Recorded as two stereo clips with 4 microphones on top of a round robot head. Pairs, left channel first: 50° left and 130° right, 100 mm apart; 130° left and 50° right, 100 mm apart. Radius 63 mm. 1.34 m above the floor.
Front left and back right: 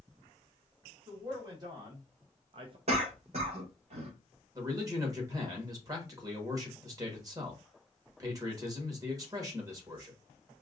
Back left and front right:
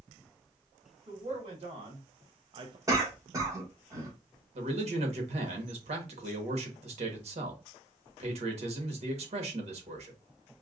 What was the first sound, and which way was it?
A man speaking, 75° right.